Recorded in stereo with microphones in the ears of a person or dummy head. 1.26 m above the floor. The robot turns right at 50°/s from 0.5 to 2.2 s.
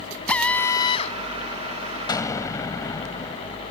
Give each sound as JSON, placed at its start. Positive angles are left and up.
{"t": 0.3, "sound": "a drill", "azimuth_deg": 10}
{"t": 2.1, "sound": "an explosion", "side_deg": 25}